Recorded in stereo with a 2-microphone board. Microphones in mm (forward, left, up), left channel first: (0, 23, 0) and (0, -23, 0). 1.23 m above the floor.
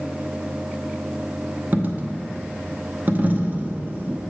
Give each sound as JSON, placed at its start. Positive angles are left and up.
{"t": 1.7, "sound": "a dropped coin", "side_deg": -40, "distance_m": 0.7}